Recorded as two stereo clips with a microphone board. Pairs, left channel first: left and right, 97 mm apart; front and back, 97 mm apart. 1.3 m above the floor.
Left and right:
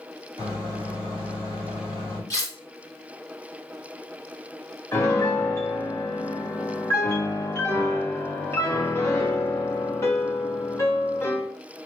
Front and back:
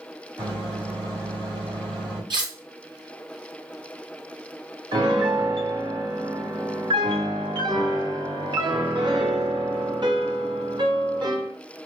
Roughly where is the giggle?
No giggle in this recording.